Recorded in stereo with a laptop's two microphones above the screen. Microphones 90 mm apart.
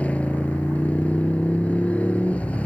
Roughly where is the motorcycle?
Centre.